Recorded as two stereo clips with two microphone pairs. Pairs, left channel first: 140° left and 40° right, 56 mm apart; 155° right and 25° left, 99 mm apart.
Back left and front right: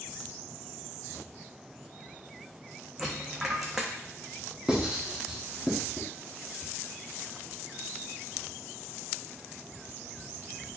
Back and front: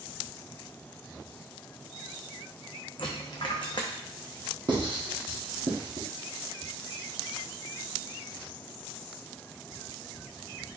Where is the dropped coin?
120° right, 0.8 m.